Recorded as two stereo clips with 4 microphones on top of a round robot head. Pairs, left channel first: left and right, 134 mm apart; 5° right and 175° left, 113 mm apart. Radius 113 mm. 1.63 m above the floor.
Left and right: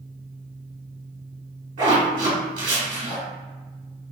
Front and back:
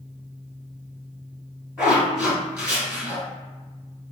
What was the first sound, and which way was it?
A zipper, 105° right.